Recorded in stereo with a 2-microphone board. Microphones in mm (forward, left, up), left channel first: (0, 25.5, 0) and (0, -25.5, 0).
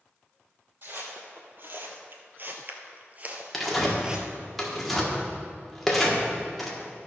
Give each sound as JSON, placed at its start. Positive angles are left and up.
{"t": 0.8, "sound": "footsteps", "side_deg": -50, "distance_m": 1.8}
{"t": 3.5, "sound": "tearing paper", "side_deg": 5, "distance_m": 1.5}